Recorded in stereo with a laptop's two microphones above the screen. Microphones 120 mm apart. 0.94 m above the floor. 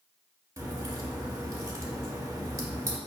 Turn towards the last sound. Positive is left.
turn(degrees=-20)  # may be behind; listen again after turning